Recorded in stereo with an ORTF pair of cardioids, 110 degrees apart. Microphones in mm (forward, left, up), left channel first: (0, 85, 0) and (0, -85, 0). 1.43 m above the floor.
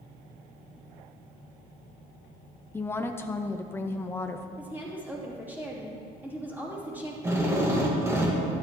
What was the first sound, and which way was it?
A woman speaking, 15° left.